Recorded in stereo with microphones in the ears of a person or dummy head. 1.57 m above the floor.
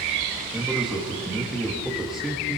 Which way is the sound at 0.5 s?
5° right (ahead or behind).